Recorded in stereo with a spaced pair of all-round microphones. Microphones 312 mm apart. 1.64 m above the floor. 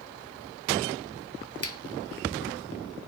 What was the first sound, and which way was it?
A finger snap, 50° left (ahead or behind).